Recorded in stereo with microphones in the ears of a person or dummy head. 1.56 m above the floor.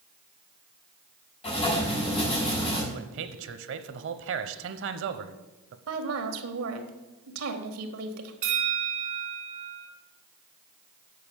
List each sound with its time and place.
1.4 s writing: 30° left (ahead or behind), 5 m
2.9 s a man speaking: 65° right (ahead or behind), 1.0 m
5.9 s a woman speaking: 80° right, 1.8 m
8.4 s a bell: 40° right (ahead or behind), 2 m